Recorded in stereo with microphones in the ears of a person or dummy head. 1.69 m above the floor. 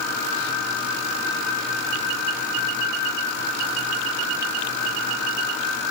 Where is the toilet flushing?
No toilet flushing in this recording.